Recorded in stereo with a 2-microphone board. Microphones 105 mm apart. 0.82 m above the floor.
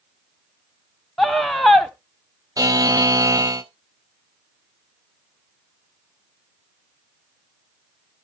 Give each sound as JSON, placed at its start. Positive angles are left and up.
{"t": 1.2, "sound": "a scream", "side_deg": 5, "distance_m": 0.9}
{"t": 2.6, "sound": "a buzzer", "side_deg": -35, "distance_m": 0.7}